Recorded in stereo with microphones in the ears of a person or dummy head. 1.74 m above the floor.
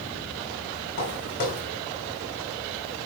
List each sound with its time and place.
1.0 s footsteps: 60° left (ahead or behind), 5.5 m